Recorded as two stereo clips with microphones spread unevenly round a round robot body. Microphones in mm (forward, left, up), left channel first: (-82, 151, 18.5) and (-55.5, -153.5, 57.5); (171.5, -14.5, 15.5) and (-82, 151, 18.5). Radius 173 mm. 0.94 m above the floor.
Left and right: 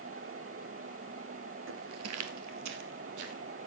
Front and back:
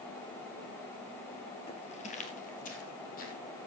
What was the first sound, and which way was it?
Footsteps, 100° right.